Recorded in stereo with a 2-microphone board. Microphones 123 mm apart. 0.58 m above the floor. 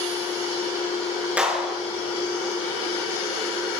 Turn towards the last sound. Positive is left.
turn(degrees=-10)  # may be behind; listen again after turning